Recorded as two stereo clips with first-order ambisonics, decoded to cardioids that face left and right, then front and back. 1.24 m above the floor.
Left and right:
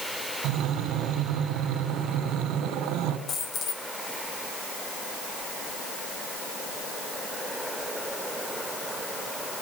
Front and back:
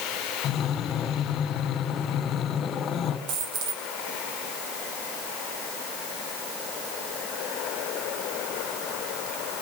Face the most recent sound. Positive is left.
turn(degrees=150)